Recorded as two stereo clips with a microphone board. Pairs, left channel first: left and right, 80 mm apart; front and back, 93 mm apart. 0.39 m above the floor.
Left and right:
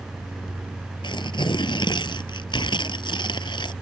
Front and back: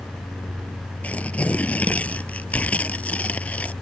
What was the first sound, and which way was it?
Tearing paper, 75° left.